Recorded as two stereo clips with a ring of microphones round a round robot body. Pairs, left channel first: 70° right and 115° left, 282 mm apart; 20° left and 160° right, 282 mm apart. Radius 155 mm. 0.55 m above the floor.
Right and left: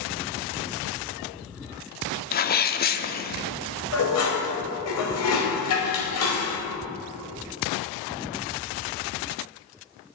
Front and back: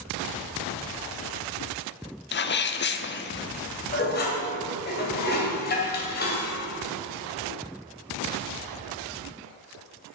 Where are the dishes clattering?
35° right, 1.8 m.